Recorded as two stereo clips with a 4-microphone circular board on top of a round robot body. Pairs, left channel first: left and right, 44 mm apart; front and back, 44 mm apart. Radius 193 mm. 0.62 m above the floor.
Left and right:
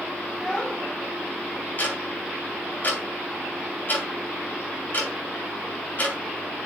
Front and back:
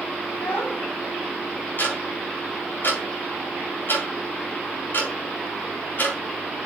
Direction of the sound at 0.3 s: 15° left.